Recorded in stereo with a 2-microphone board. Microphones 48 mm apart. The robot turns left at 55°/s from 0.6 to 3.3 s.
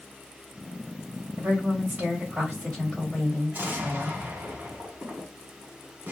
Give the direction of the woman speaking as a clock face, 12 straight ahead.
3 o'clock.